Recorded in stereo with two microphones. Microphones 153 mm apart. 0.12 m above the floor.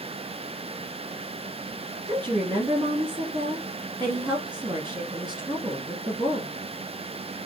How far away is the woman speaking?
About 1.3 m.